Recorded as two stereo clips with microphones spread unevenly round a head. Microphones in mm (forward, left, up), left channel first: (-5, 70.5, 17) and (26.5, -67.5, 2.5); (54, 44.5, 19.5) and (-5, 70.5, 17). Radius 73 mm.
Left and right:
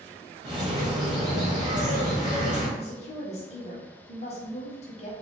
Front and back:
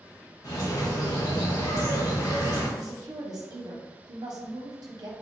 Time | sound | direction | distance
0.4 | a bird | 15° right | 1.4 m
2.8 | a woman speaking | 150° left | 1.0 m